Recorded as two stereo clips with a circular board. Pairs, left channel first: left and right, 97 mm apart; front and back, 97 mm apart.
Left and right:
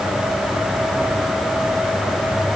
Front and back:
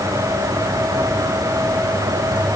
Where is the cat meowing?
No cat meowing in this recording.